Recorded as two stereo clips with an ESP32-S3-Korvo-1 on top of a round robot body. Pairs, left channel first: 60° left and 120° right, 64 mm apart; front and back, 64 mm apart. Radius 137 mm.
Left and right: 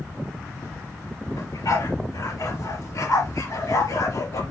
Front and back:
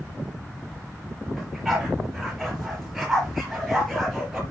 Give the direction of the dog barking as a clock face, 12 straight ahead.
9 o'clock.